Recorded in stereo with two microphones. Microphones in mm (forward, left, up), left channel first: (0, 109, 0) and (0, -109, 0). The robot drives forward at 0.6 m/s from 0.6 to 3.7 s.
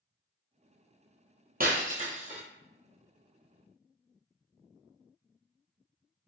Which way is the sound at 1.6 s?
45° right (ahead or behind).